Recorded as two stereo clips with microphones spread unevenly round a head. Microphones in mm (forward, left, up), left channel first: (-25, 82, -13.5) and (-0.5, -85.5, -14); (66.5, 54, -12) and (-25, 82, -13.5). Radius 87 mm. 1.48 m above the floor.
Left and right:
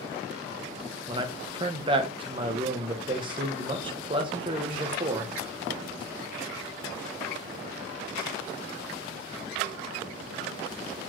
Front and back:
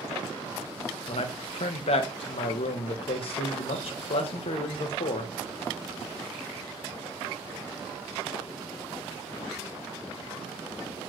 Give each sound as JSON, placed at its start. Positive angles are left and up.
{"t": 1.1, "sound": "a man speaking", "azimuth_deg": -20, "distance_m": 0.7}